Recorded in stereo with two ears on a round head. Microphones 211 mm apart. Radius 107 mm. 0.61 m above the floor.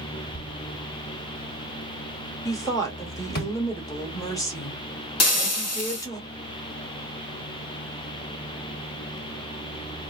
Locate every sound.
0.3 s a thud: 40° left (ahead or behind), 1.3 m
2.5 s a woman speaking: 15° left (ahead or behind), 1.2 m
5.2 s frying: 70° left (ahead or behind), 1.1 m